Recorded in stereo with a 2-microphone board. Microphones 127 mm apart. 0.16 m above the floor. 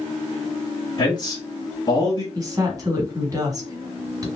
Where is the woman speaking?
30° right (ahead or behind), 1.3 m.